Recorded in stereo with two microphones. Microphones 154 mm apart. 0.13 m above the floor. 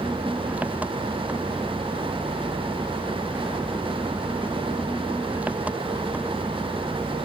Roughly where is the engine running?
Centre.